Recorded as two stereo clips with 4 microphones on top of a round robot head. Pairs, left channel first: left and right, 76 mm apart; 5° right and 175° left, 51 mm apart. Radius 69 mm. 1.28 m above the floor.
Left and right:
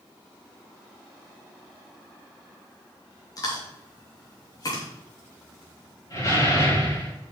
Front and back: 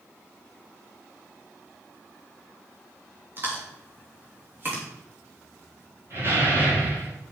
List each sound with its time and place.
3.4 s chewing: 125° left, 3 m
6.1 s a door slam: 135° left, 5 m